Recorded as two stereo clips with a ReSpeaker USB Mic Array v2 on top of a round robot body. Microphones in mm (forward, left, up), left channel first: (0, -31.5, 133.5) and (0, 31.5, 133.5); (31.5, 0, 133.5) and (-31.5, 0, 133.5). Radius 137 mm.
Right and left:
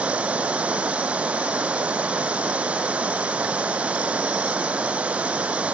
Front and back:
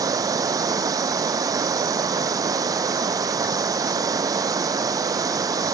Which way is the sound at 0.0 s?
160° left.